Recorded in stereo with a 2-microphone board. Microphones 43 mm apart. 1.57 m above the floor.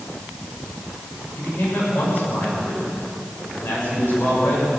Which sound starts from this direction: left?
A man speaking, at 1.4 s.